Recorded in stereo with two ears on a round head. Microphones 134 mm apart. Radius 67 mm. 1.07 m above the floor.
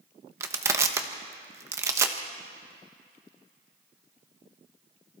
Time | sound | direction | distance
0.4 | crushing | 20° right (ahead or behind) | 1.2 m